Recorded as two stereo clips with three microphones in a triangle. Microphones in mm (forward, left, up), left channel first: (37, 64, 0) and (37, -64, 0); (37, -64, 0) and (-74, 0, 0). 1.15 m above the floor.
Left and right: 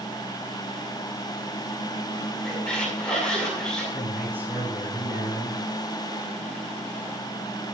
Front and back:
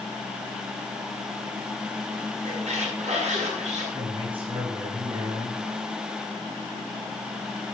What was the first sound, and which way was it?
A squeak, 170° left.